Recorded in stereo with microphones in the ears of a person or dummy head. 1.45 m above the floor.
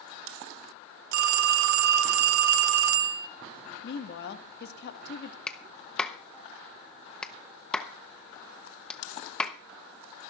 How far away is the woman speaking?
About 1.7 m.